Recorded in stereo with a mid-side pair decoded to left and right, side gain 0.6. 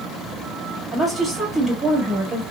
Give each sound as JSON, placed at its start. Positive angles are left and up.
{"t": 0.9, "sound": "a woman speaking", "azimuth_deg": -20, "distance_m": 1.8}